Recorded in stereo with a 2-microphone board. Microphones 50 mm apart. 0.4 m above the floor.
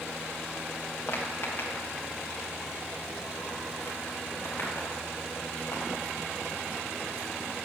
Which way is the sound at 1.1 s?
45° left (ahead or behind).